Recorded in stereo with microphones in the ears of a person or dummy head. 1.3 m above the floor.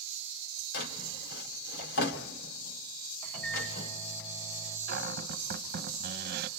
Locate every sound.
0.7 s a drawer: 60° left (ahead or behind), 2 m
3.2 s a microwave: 5° left (ahead or behind), 6.5 m
4.9 s a cupboard door: 55° right (ahead or behind), 1.1 m